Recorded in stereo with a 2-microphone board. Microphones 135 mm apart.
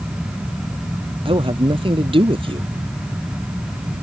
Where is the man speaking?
40° right (ahead or behind).